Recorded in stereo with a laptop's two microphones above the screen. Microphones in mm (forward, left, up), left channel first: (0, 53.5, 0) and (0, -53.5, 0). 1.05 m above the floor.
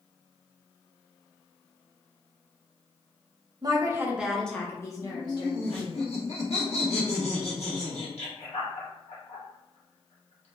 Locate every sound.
3.6 s a woman speaking: 40° right (ahead or behind), 0.7 m; by 6.0 s 50° left (ahead or behind), 1.2 m
5.0 s laughter: 75° left (ahead or behind), 1.2 m